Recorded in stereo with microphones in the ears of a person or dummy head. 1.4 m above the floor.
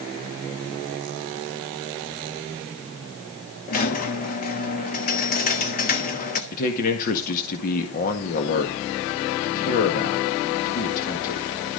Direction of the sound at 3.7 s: 45° left (ahead or behind).